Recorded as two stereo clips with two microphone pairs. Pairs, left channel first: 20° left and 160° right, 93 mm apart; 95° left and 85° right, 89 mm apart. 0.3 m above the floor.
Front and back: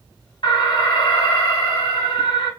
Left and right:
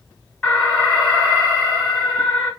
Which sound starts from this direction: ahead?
An alarm, at 0.4 s.